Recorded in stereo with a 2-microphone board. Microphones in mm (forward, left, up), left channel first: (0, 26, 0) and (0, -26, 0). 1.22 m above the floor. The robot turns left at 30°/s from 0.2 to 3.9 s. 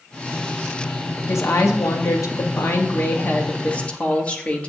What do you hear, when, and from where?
1.3 s a woman speaking: 105° left, 1.7 m; by 4.7 s 25° left, 1.7 m